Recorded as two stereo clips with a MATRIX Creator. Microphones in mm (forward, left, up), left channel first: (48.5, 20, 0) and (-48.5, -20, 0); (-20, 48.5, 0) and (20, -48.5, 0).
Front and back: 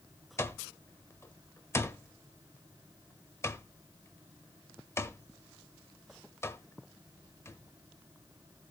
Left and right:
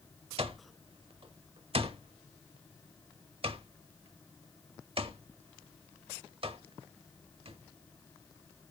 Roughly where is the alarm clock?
Ahead right.